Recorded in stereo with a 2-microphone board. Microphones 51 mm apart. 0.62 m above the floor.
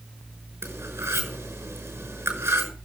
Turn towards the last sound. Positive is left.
turn(degrees=-60)  # may be behind; listen again after turning